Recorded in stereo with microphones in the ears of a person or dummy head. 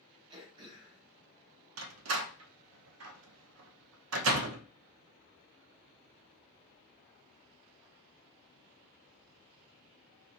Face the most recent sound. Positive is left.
turn(degrees=-80)